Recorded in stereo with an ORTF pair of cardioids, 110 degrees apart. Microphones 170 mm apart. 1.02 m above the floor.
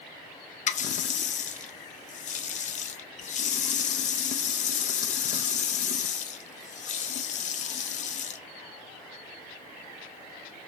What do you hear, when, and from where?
0.7 s a running tap: 45° left, 0.5 m